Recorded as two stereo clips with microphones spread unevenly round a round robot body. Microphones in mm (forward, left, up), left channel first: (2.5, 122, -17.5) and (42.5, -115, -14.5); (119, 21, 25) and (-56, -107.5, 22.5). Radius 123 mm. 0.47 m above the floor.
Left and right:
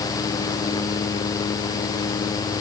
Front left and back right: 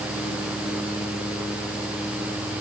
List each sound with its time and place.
Only background noise.